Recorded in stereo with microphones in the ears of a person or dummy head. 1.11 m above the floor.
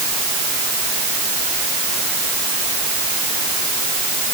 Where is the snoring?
No snoring in this recording.